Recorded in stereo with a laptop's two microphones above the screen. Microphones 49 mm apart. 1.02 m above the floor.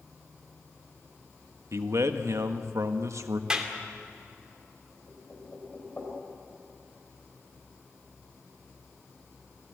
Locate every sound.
1.7 s a man speaking: 70° right (ahead or behind), 1.3 m
3.5 s a clap: 15° right (ahead or behind), 2.5 m
5.1 s knocking: 35° left (ahead or behind), 3.5 m